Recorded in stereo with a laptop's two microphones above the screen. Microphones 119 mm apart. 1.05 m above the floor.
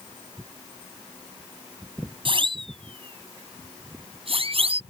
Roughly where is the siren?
Right.